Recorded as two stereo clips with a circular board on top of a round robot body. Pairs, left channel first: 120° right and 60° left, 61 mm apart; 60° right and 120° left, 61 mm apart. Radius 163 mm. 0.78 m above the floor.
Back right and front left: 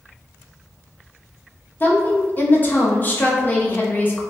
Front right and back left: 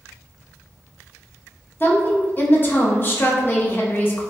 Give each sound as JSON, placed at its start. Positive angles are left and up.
{"t": 1.8, "sound": "a woman speaking", "azimuth_deg": -85, "distance_m": 1.1}